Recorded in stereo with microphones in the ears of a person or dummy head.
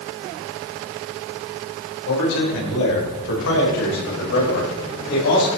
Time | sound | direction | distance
2.1 | a man speaking | 75° left (ahead or behind) | 6 m